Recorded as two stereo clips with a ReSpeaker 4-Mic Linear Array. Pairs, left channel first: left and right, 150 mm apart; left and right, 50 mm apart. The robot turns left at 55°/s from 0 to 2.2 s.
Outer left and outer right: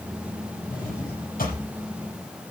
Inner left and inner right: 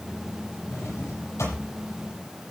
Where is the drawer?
70° left (ahead or behind), 6.5 m; by 1.6 s 60° left (ahead or behind), 6.5 m.